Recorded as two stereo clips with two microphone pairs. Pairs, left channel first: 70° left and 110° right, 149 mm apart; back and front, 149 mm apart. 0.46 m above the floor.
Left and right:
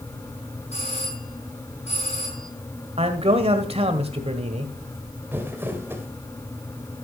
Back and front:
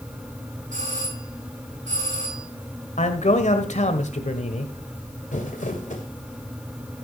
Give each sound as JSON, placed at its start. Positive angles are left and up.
{"t": 0.7, "sound": "a doorbell", "azimuth_deg": 30, "distance_m": 9.0}
{"t": 3.0, "sound": "a man speaking", "azimuth_deg": -150, "distance_m": 1.6}
{"t": 5.3, "sound": "crumpling", "azimuth_deg": 180, "distance_m": 2.0}